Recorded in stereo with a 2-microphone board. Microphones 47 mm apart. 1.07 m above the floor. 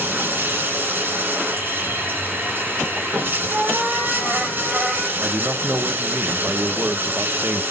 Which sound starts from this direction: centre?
A cat meowing, at 3.5 s.